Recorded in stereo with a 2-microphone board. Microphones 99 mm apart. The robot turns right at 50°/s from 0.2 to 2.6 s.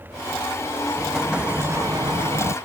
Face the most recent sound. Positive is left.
turn(degrees=-105)